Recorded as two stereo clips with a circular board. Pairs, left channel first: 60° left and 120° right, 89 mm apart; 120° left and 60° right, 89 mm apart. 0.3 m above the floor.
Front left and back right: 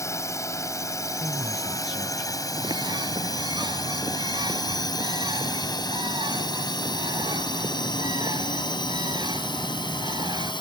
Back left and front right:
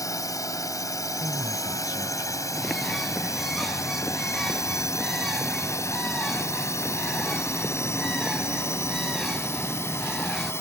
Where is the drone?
95° left; by 10.6 s 60° left.